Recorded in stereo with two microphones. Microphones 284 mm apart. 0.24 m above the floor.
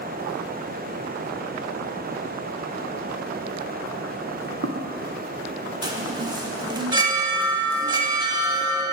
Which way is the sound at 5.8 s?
15° right (ahead or behind).